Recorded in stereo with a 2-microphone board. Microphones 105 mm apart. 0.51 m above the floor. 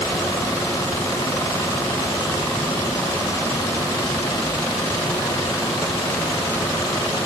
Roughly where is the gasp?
No gasp in this recording.